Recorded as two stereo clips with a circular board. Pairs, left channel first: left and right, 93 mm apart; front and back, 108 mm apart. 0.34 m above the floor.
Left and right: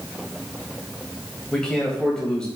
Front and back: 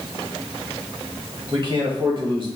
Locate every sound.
1.5 s a man speaking: 170° left, 1.3 m